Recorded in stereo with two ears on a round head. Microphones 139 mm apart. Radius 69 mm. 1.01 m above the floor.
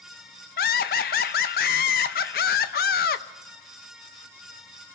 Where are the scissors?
No scissors in this recording.